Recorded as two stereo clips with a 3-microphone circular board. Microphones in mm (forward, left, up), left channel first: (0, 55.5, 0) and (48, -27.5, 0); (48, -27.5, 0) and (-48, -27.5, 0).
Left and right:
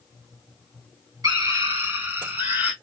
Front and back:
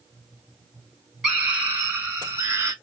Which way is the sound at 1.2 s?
100° right.